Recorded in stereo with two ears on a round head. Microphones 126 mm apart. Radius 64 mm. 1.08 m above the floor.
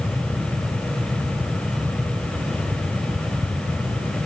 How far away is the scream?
I don't hear a scream.